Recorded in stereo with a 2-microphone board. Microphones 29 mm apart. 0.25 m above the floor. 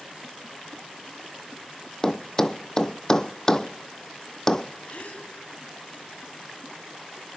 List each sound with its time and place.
2.0 s a thud: 15° left (ahead or behind), 0.7 m
4.9 s a gasp: 50° left (ahead or behind), 2.5 m